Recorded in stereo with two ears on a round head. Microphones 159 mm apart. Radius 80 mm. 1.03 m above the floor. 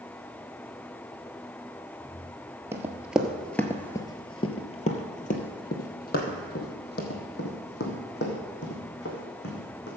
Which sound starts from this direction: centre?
Running footsteps, at 2.7 s.